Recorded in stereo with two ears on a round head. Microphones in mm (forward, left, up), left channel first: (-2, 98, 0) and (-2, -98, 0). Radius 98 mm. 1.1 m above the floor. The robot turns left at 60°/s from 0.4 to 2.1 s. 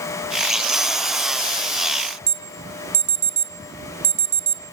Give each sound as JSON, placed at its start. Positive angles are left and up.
{"t": 2.3, "sound": "an alarm", "side_deg": -35, "distance_m": 2.0}